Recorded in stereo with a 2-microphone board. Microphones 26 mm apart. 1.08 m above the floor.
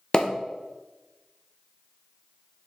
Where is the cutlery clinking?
I don't hear cutlery clinking.